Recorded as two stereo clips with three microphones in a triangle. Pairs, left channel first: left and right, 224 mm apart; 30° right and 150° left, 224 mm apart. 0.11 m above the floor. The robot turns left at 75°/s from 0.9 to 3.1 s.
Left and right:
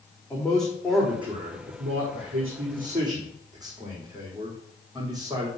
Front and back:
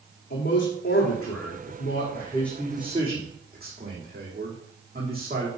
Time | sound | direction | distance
0.3 | a man speaking | 5° left | 5.5 m